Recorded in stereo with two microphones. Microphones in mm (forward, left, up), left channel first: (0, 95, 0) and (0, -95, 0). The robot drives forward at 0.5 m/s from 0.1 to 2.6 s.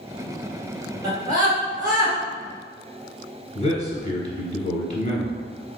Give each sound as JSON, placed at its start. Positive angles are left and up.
{"t": 1.0, "sound": "a scream", "side_deg": -20, "distance_m": 1.8}
{"t": 3.5, "sound": "a man speaking", "side_deg": 35, "distance_m": 1.3}